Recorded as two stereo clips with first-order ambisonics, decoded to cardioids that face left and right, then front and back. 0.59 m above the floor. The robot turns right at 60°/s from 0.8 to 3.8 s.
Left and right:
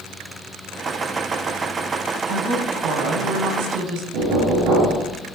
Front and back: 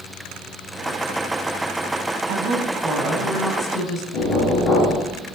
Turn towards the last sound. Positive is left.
turn(degrees=-55)